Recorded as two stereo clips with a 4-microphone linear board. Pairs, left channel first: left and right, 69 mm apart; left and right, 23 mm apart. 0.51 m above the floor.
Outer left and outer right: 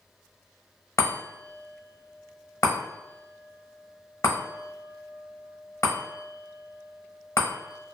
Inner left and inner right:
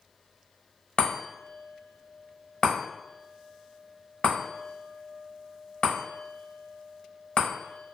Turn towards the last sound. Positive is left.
turn(degrees=45)  # may be behind; listen again after turning